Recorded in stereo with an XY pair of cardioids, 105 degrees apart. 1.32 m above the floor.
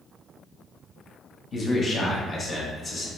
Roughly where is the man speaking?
Ahead left.